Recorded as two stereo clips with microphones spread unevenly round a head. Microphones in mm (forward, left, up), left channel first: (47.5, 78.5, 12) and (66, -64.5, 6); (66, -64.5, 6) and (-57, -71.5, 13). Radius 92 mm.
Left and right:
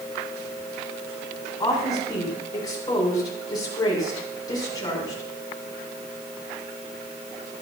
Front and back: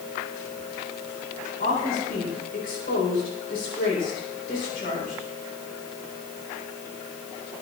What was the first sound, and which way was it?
A woman speaking, 35° left.